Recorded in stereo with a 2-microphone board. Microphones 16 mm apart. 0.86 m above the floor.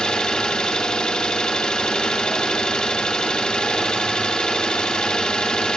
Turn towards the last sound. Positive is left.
turn(degrees=80)